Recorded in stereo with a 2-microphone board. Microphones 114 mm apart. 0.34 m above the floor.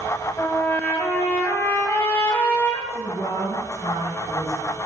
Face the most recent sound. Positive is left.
turn(degrees=70)  # may be behind; listen again after turning